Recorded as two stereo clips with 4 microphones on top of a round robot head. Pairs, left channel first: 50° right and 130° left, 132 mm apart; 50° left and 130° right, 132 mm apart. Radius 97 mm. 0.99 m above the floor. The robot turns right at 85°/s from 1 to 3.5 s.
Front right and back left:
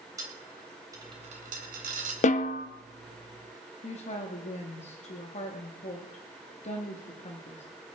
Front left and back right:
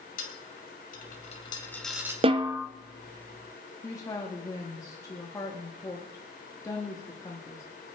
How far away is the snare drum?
About 0.9 m.